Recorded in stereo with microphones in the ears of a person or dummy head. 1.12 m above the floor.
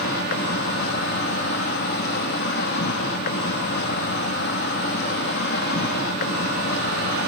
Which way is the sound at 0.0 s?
50° left (ahead or behind).